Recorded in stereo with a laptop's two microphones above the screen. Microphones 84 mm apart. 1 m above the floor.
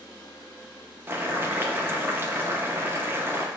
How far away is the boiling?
About 0.6 m.